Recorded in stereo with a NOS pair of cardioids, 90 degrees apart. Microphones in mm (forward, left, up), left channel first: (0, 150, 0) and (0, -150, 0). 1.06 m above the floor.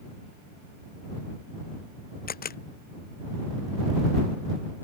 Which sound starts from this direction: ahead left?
A camera shutter, at 2.3 s.